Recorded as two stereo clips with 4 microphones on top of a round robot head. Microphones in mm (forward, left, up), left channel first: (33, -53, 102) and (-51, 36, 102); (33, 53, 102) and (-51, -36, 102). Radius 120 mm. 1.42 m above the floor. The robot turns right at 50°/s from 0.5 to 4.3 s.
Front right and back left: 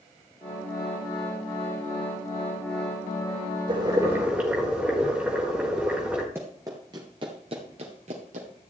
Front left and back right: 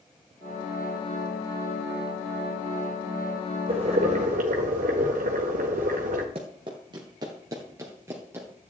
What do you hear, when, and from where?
3.7 s boiling: straight behind, 1.7 m; by 6.2 s 150° right, 1.7 m
6.3 s running footsteps: 160° right, 1.6 m; by 8.5 s 155° left, 2 m